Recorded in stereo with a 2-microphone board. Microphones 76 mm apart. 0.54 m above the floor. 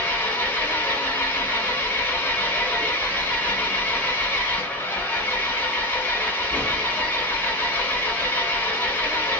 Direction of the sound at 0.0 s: 25° left (ahead or behind).